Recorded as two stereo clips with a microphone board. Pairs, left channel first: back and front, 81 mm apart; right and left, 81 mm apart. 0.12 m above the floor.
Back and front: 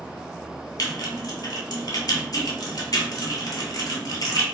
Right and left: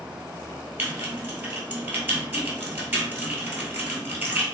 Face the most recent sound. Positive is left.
turn(degrees=150)